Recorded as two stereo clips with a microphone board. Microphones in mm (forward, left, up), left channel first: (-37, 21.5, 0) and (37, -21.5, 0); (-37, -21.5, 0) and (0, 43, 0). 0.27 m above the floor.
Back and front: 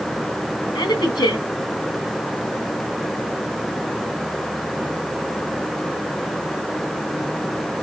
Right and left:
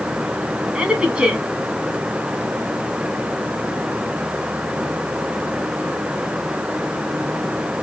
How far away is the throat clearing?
No throat clearing in this recording.